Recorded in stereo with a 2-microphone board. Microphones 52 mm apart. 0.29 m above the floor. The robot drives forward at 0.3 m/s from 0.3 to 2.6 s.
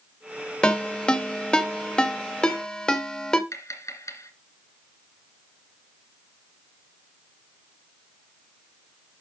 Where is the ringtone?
20° left (ahead or behind), 0.9 m; by 3.4 s 15° left (ahead or behind), 1.0 m.